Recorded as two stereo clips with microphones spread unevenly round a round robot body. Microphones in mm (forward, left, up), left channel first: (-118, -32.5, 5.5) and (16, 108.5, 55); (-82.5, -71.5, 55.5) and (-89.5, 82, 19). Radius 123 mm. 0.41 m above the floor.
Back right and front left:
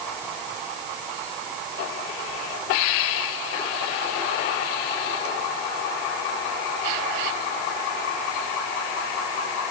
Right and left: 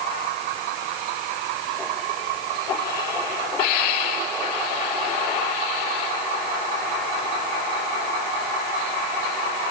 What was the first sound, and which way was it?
Only background noise.